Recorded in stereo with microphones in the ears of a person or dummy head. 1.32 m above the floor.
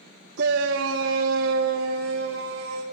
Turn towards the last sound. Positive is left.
turn(degrees=-80)